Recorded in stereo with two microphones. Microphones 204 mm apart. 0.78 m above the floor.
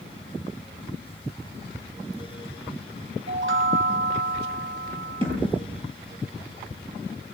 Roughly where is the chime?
Right.